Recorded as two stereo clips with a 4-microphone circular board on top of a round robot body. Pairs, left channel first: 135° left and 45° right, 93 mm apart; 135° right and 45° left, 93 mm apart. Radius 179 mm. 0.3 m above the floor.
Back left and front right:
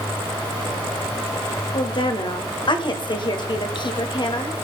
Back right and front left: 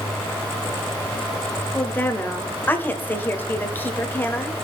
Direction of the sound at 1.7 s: 160° left.